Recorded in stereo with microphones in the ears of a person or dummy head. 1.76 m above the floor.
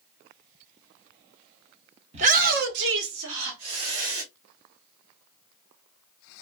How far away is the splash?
No splash in this recording.